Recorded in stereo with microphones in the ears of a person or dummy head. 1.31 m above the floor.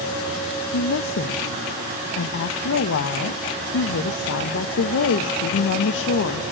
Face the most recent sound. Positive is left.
turn(degrees=75)  # may be behind; listen again after turning